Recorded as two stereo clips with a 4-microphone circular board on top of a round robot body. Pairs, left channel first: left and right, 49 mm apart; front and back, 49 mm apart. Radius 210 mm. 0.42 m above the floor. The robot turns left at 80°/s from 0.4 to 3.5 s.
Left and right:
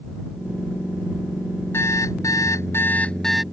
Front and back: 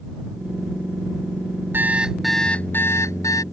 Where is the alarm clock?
130° left; by 3.4 s 5° right.